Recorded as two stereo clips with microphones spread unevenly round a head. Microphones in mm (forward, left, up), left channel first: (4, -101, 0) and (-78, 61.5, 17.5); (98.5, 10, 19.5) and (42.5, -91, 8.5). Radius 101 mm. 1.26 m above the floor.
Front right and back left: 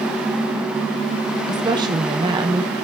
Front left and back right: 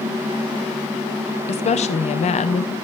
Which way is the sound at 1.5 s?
45° left.